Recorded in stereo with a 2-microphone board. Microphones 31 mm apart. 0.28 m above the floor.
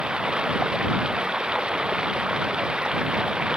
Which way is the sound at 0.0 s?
30° right (ahead or behind).